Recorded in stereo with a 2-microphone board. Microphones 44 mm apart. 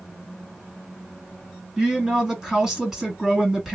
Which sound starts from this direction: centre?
A woman speaking, at 1.8 s.